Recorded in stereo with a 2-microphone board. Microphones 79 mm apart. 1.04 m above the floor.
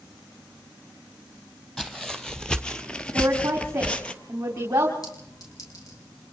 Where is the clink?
45° left (ahead or behind), 6 m.